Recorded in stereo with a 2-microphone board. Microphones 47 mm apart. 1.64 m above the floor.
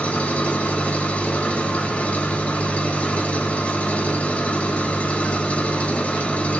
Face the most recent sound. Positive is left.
turn(degrees=30)  # may be behind; listen again after turning